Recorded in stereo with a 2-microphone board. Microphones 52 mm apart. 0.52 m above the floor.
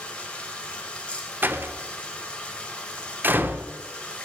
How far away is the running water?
About 1.9 m.